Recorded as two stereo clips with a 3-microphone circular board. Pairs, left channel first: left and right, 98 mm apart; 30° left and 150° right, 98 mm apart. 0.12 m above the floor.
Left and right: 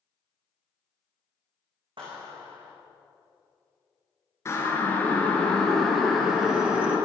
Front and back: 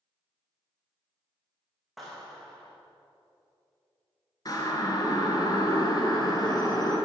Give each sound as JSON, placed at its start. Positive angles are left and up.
{"t": 2.0, "sound": "a clap", "azimuth_deg": -60, "distance_m": 7.0}
{"t": 4.5, "sound": "a siren", "azimuth_deg": 45, "distance_m": 2.5}